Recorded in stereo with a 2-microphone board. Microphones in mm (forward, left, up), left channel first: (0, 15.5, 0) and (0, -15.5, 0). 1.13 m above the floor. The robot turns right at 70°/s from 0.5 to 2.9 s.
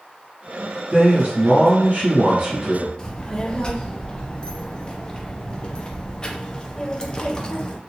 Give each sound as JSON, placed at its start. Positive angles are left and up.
{"t": 0.9, "sound": "a man speaking", "azimuth_deg": -135, "distance_m": 1.8}
{"t": 3.0, "sound": "a child speaking", "side_deg": 30, "distance_m": 0.6}